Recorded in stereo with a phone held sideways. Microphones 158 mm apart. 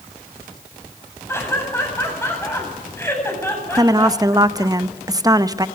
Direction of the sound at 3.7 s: 25° right (ahead or behind).